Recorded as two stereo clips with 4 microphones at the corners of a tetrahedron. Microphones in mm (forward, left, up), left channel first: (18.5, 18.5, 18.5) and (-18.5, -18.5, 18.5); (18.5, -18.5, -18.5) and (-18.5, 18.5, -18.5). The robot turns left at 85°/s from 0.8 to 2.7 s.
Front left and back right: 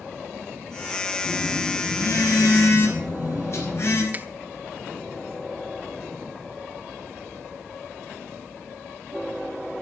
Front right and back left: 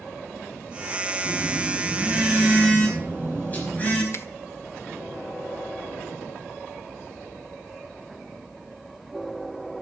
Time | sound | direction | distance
1.2 | a phone buzzing | 140° left | 5 m
4.1 | a finger snap | 80° right | 0.8 m